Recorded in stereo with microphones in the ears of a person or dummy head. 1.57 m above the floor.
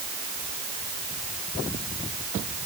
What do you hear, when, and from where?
Only background noise.